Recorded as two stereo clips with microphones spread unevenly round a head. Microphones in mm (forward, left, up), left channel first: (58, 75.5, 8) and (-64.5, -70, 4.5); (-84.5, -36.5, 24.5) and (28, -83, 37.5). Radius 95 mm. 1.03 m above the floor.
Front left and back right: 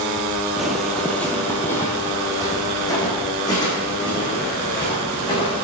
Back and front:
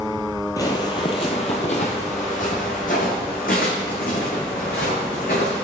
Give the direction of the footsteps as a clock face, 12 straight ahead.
7 o'clock.